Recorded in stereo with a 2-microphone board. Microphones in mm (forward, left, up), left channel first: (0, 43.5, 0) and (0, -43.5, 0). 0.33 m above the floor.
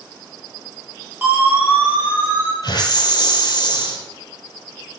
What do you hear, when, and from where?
1.2 s a siren: 20° right (ahead or behind), 6.5 m
2.6 s a hiss: 55° left (ahead or behind), 4 m